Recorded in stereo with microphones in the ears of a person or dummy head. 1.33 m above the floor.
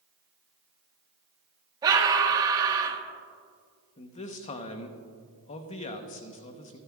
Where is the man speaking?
35° left (ahead or behind), 0.9 m.